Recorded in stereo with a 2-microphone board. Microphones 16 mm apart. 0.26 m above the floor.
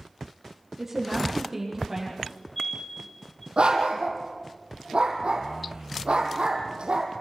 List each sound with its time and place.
0.8 s a woman speaking: 15° right (ahead or behind), 9 m
2.2 s a fire alarm: 20° left (ahead or behind), 6 m
3.6 s a dog barking: 85° right, 3.5 m